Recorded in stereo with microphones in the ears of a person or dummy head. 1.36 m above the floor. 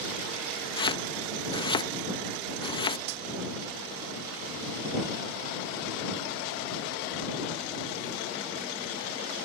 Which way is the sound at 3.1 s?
55° right (ahead or behind).